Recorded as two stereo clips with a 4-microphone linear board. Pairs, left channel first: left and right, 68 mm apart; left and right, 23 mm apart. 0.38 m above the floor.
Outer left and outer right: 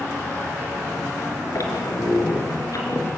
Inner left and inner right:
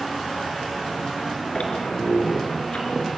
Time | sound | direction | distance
1.6 | a squeak | 50° left (ahead or behind) | 4.5 m